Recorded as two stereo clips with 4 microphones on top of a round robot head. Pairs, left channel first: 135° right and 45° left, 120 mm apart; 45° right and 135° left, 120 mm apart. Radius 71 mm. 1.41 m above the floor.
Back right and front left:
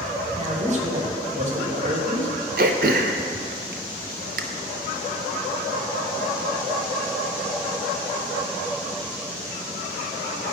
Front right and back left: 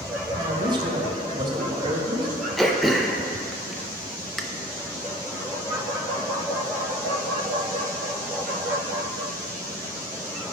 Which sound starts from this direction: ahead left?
Throat clearing, at 2.6 s.